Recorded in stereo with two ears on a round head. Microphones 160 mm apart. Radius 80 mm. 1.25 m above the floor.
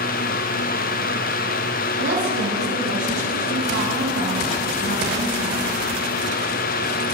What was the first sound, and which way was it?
A woman speaking, 80° right.